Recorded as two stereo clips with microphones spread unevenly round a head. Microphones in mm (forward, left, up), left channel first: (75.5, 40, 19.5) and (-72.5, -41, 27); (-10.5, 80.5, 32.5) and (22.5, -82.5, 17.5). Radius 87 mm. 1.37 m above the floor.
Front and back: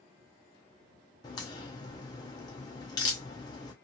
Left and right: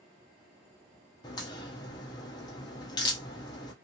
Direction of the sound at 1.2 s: 80° left.